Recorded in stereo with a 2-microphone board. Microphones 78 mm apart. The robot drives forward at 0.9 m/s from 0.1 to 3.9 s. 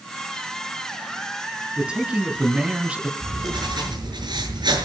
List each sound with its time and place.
1.8 s a man speaking: 10° right (ahead or behind), 3.5 m; by 3.1 s 15° right (ahead or behind), 2.5 m
3.2 s writing: 75° right (ahead or behind), 6 m; by 4.9 s 70° right (ahead or behind), 6.5 m